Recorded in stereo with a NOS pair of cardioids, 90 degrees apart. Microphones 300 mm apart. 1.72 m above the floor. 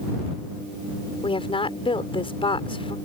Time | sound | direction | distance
1.2 | a woman speaking | 15° left | ?